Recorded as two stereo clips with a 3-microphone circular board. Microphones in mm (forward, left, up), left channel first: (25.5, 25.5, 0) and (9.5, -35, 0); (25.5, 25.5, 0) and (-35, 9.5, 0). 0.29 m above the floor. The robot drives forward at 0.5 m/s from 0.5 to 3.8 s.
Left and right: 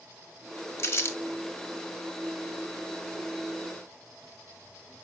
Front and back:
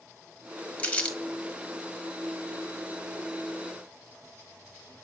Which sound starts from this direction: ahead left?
Crumpling, at 0.8 s.